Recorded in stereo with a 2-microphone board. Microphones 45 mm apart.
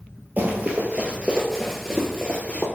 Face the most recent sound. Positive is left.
turn(degrees=25)  # may be behind; listen again after turning